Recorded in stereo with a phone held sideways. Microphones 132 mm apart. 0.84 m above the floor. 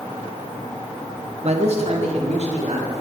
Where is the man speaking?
55° right (ahead or behind), 0.9 m.